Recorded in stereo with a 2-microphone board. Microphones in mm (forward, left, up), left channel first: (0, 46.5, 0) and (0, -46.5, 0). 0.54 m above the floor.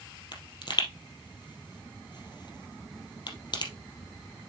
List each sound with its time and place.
0.3 s a pop: 55° left (ahead or behind), 2.5 m